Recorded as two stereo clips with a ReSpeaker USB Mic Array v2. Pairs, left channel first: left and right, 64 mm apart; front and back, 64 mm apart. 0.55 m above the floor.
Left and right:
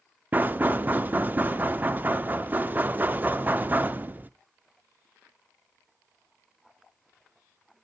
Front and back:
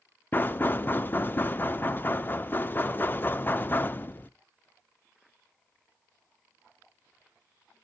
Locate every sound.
0.3 s knocking: 40° right, 0.6 m